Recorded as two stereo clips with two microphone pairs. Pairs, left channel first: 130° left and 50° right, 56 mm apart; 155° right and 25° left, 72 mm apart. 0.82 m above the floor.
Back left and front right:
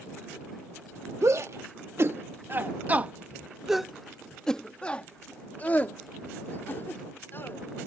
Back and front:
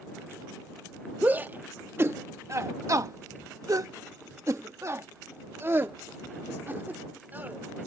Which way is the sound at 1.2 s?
40° right.